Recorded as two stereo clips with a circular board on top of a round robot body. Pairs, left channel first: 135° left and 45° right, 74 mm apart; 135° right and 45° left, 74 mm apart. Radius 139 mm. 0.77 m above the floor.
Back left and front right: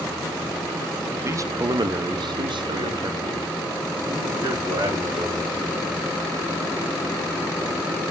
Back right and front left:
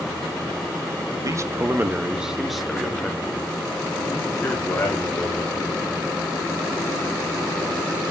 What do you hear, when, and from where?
1.2 s a man speaking: 10° left, 0.9 m; by 5.8 s 70° right, 3.5 m